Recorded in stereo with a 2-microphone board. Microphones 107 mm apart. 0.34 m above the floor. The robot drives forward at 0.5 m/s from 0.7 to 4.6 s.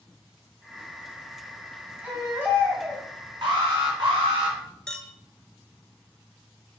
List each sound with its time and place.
2.0 s a baby crying: 15° right (ahead or behind), 2 m; by 3.0 s 20° right (ahead or behind), 1.7 m
3.4 s an alarm: 50° right (ahead or behind), 3.5 m; by 4.6 s 60° right (ahead or behind), 3 m
4.9 s a clink: 10° left (ahead or behind), 0.7 m